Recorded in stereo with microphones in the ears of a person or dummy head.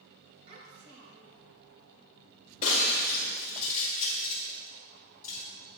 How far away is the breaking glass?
About 2 m.